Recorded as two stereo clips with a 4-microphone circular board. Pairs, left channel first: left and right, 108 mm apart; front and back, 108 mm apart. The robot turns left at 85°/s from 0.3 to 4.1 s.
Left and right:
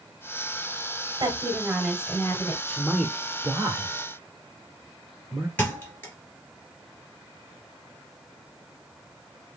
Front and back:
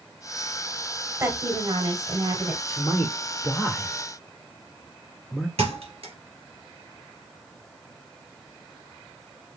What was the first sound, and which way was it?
A woman speaking, 115° right.